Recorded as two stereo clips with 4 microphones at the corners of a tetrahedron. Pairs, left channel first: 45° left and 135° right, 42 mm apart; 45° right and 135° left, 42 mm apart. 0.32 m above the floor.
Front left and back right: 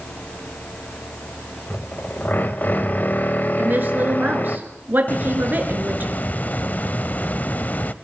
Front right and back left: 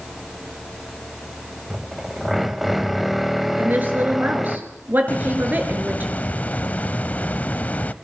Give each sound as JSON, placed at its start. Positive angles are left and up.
{"t": 1.7, "sound": "a drill", "azimuth_deg": 55, "distance_m": 1.4}
{"t": 3.6, "sound": "a woman speaking", "azimuth_deg": 180, "distance_m": 4.5}
{"t": 5.1, "sound": "a hiss", "azimuth_deg": 5, "distance_m": 0.7}